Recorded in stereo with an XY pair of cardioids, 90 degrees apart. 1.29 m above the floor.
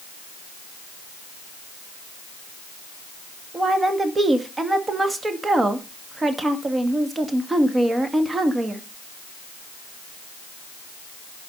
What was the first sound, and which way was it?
A woman speaking, 30° right.